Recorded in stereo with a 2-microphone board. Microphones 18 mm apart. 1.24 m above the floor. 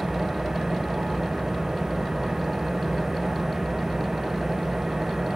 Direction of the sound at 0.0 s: 40° right (ahead or behind).